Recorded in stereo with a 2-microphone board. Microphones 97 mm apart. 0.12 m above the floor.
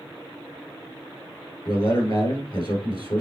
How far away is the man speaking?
About 2 m.